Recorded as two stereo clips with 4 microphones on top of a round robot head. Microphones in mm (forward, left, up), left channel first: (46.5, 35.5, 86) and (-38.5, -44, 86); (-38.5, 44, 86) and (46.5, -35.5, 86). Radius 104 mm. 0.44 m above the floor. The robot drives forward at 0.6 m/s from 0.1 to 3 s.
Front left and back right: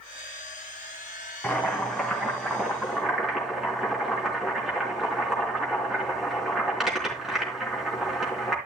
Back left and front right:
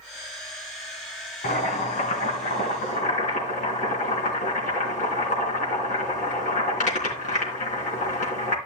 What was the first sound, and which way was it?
Boiling, 120° left.